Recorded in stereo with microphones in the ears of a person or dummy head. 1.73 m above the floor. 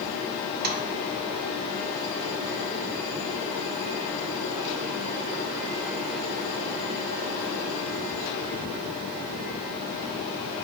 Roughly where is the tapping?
Right.